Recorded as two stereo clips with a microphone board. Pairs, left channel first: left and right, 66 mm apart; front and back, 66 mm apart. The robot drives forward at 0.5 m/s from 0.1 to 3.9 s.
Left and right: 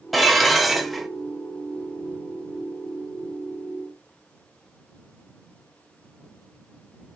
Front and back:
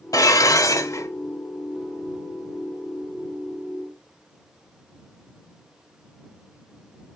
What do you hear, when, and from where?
0.1 s dishes clattering: straight ahead, 1.2 m; by 1.1 s 5° right, 0.9 m